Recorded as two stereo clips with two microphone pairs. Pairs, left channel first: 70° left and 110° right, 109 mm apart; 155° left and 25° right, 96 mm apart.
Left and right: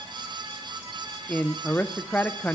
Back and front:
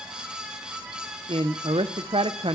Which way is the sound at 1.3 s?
5° right.